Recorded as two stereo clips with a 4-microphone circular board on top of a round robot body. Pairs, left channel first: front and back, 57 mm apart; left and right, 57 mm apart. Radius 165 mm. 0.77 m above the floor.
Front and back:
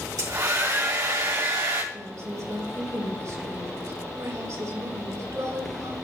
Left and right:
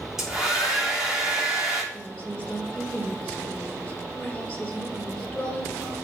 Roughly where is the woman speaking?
Behind.